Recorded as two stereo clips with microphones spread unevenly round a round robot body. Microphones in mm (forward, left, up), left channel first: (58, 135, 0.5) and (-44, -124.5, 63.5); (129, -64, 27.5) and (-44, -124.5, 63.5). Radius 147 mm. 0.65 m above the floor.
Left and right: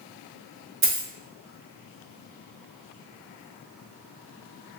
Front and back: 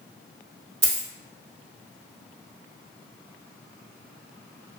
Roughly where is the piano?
No piano in this recording.